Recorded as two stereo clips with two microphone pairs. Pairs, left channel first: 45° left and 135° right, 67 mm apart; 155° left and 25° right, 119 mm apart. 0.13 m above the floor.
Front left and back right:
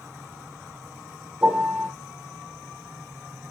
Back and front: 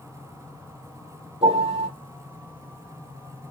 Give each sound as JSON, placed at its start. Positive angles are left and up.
{"t": 1.4, "sound": "a piano", "azimuth_deg": -65, "distance_m": 4.5}